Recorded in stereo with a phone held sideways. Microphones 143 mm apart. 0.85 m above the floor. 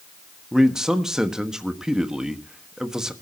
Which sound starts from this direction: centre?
A man speaking, at 0.5 s.